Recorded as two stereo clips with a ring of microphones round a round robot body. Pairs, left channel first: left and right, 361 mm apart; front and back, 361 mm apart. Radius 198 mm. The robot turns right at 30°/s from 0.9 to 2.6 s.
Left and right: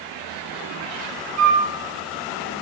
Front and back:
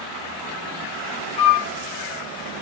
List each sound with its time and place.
1.4 s a flute: 75° right, 0.8 m; by 1.7 s 65° right, 0.8 m